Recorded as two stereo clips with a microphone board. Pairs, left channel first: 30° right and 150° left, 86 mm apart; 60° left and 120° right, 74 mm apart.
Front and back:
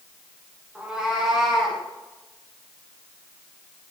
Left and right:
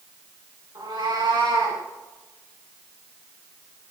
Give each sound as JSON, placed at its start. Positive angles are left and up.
{"t": 0.8, "sound": "a cat meowing", "azimuth_deg": -130, "distance_m": 6.0}